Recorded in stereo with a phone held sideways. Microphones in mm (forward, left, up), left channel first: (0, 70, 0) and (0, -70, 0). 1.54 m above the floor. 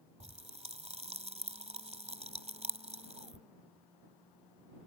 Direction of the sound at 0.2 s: 50° right (ahead or behind).